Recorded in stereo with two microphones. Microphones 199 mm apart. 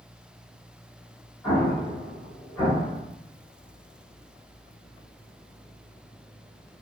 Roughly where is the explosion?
Centre.